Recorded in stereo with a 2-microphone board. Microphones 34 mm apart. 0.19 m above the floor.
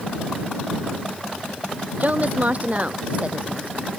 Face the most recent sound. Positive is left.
turn(degrees=-35)  # may be behind; listen again after turning